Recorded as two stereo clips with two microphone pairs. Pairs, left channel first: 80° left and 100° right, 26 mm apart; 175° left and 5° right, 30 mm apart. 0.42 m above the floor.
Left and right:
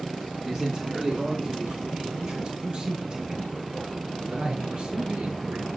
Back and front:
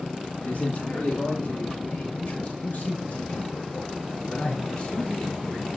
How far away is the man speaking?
About 6 m.